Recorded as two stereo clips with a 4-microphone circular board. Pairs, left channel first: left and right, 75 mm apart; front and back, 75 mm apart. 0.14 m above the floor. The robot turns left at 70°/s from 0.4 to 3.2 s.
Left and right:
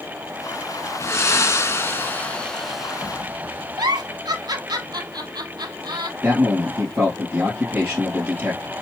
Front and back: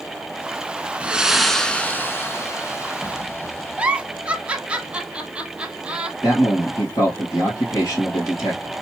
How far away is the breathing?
About 0.6 m.